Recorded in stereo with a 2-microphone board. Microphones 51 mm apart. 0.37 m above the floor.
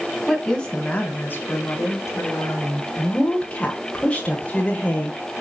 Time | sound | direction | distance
0.3 | a woman speaking | 5° left (ahead or behind) | 2 m
3.0 | a woman speaking | 25° left (ahead or behind) | 1.5 m